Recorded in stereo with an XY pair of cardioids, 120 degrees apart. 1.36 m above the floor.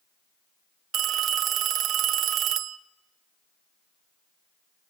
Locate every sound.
0.9 s a phone ringing: 55° right, 0.9 m